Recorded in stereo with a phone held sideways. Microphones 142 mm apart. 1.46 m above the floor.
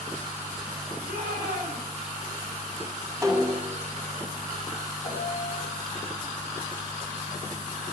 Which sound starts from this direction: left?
A piano, at 5.0 s.